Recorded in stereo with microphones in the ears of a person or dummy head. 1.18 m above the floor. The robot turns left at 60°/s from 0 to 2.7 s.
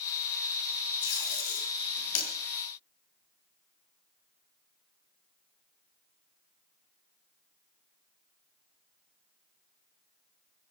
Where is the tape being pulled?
25° left (ahead or behind), 8 m; by 2.3 s 80° left, 8 m.